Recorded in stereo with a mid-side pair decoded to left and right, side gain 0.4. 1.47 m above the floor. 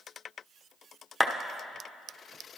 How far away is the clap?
About 1.0 m.